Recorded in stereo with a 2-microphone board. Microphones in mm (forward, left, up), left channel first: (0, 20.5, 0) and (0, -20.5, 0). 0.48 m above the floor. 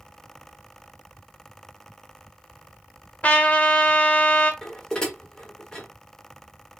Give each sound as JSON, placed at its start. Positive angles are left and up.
{"t": 3.2, "sound": "a trumpet", "side_deg": 40, "distance_m": 0.6}
{"t": 4.6, "sound": "dishes clattering", "side_deg": 15, "distance_m": 0.9}